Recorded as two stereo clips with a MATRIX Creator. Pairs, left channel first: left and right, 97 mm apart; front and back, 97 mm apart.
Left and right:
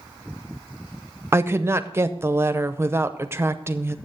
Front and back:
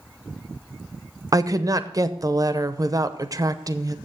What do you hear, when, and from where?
1.3 s a woman speaking: 145° right, 0.7 m